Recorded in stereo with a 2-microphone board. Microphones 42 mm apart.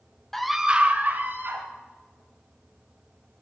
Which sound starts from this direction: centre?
A scream, at 0.3 s.